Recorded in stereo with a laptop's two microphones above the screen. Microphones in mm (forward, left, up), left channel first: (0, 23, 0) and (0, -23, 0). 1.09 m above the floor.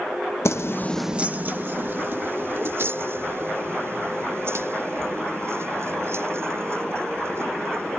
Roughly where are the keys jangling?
Left.